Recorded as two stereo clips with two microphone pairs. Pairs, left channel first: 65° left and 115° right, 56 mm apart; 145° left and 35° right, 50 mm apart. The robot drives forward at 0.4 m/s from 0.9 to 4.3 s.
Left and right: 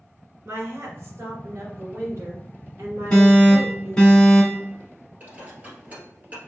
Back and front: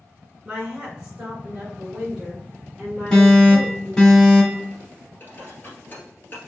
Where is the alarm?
90° left, 1.9 m; by 4.7 s 130° left, 1.9 m.